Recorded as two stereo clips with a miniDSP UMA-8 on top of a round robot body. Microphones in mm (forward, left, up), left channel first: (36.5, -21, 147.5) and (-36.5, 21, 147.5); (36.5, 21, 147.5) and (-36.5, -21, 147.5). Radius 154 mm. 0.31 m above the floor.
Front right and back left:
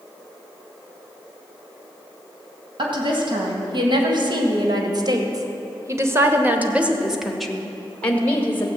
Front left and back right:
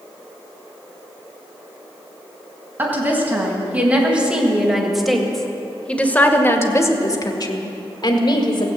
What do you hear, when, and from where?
2.8 s a woman speaking: 145° left, 3.5 m; by 8.7 s 35° left, 2 m